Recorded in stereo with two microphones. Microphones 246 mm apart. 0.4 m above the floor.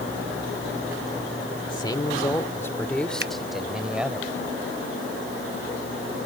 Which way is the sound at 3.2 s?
50° right (ahead or behind).